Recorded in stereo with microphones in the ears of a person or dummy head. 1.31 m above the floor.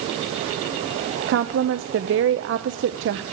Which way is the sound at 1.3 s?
65° right (ahead or behind).